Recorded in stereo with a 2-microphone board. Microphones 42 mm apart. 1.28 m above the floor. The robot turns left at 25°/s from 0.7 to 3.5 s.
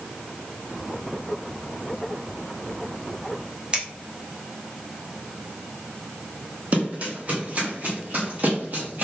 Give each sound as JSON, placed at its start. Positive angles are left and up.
{"t": 3.7, "sound": "scissors", "side_deg": -25, "distance_m": 1.0}
{"t": 6.7, "sound": "running footsteps", "side_deg": -40, "distance_m": 2.0}